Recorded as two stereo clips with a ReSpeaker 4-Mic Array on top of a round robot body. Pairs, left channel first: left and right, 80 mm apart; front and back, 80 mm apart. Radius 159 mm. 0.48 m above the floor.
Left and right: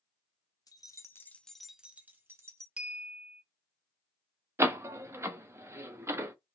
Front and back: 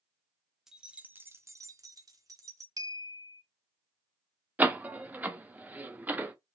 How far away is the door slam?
About 0.7 m.